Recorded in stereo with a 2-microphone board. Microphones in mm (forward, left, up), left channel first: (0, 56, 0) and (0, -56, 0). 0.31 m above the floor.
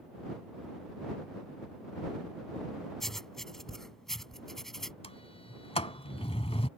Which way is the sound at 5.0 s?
65° left (ahead or behind).